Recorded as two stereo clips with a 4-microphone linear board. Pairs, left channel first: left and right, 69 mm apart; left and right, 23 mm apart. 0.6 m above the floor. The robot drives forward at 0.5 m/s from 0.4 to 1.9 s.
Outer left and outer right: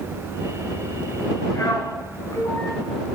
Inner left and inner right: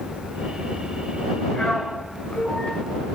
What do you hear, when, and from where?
1.5 s a man speaking: 80° left, 6.5 m